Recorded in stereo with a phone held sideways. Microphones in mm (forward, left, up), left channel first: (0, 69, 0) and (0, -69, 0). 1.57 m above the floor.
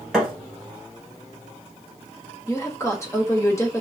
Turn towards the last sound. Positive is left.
turn(degrees=20)  # may be behind; listen again after turning